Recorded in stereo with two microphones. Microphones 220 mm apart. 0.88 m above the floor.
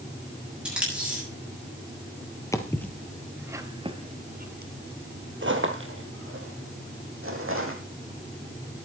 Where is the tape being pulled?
5° right (ahead or behind), 7.5 m.